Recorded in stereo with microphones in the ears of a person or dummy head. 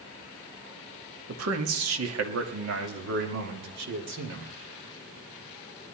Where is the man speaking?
85° right, 1.7 m; by 4.5 s 60° right (ahead or behind), 3 m.